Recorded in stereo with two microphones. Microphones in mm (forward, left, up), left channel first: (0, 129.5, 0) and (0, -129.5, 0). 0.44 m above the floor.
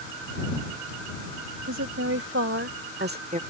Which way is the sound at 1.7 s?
70° right (ahead or behind).